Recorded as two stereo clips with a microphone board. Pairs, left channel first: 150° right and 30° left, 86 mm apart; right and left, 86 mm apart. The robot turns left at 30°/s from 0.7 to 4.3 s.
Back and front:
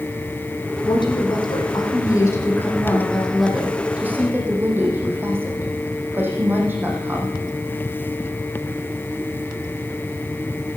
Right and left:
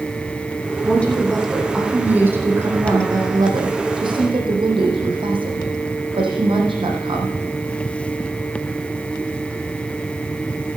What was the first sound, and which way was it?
A woman speaking, 160° right.